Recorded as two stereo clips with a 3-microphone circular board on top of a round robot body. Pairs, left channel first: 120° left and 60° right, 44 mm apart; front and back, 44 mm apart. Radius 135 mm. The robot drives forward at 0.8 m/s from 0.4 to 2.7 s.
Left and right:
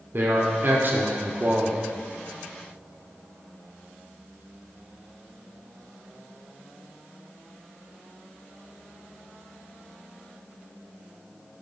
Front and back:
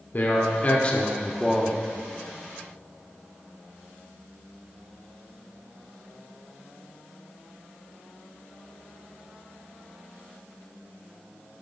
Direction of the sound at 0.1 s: 40° right.